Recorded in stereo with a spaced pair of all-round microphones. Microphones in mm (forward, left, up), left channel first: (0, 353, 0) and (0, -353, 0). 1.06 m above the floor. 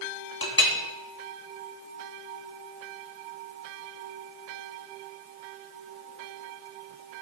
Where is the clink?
30° left (ahead or behind), 1.2 m.